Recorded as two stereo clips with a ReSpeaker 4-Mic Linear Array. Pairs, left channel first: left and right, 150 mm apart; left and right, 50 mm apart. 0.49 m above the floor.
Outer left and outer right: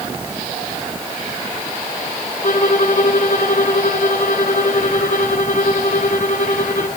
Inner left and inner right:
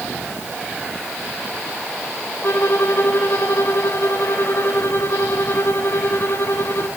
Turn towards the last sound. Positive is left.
turn(degrees=55)  # may be behind; listen again after turning